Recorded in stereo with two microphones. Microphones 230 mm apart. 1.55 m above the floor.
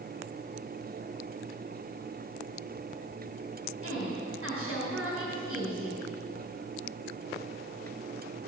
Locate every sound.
3.8 s a woman speaking: 75° right (ahead or behind), 5.5 m